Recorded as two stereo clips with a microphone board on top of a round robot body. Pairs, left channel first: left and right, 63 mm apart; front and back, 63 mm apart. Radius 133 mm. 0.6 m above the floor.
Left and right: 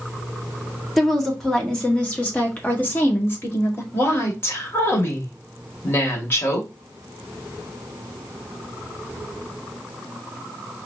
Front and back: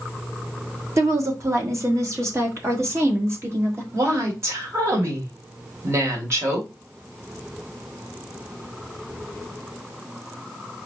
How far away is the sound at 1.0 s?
About 1.8 m.